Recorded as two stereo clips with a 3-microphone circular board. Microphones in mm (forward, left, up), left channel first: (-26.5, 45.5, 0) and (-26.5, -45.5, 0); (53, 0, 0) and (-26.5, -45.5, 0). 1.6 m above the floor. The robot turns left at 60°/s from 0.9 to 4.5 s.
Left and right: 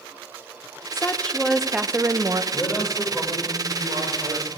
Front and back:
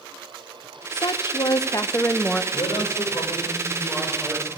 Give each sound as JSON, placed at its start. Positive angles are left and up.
{"t": 0.9, "sound": "a woman speaking", "azimuth_deg": 35, "distance_m": 0.6}
{"t": 2.5, "sound": "a man speaking", "azimuth_deg": 30, "distance_m": 5.5}